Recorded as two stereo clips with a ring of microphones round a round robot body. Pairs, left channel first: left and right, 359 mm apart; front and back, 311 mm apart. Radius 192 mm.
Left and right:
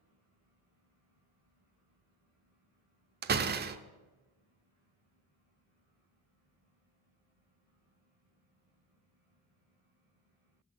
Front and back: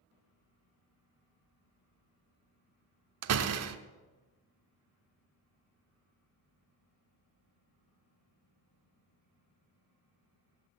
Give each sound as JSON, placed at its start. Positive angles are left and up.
{"t": 3.2, "sound": "a door slam", "azimuth_deg": -150, "distance_m": 0.8}